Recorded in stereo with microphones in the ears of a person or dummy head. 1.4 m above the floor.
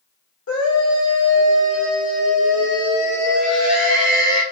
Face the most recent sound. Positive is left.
turn(degrees=85)